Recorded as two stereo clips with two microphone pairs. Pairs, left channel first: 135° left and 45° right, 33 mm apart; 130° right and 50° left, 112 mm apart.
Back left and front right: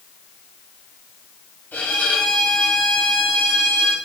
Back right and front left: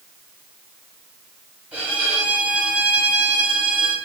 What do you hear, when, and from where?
1.7 s a violin: 125° left, 1.9 m